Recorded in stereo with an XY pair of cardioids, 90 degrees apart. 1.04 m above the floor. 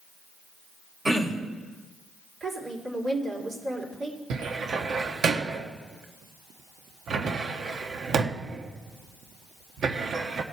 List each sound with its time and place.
1.1 s throat clearing: 30° right, 1.9 m
2.4 s a woman speaking: 60° right, 3 m
4.3 s a cupboard door: 65° right, 1.0 m